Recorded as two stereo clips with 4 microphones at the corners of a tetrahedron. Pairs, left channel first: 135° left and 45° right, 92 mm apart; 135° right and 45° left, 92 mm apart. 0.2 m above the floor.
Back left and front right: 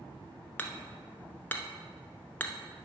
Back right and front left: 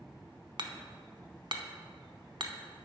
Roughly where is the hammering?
Left.